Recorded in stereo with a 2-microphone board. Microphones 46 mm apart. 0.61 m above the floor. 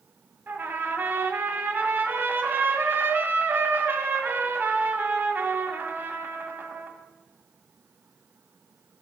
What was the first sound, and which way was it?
A trumpet, 45° right (ahead or behind).